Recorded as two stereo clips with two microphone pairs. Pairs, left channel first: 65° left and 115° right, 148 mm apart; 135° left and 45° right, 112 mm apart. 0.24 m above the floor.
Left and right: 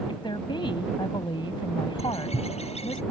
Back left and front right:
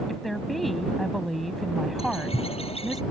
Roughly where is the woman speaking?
Ahead left.